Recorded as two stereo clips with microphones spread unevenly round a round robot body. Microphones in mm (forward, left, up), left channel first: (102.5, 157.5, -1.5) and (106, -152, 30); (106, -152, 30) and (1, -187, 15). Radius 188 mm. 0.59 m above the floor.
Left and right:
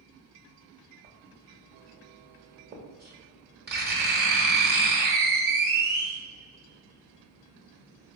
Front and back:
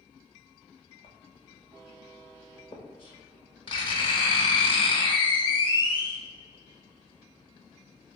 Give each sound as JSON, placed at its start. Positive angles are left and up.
{"t": 1.0, "sound": "writing", "azimuth_deg": -30, "distance_m": 0.8}